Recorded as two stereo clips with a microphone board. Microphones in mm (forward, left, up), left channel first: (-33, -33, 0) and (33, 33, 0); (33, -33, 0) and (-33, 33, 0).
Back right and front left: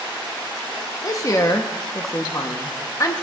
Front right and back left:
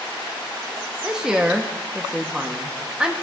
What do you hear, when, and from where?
1.0 s a woman speaking: 150° right, 0.8 m